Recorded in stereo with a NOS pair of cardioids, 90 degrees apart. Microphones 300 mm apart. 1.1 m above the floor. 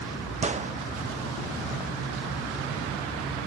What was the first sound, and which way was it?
A gunshot, 25° right.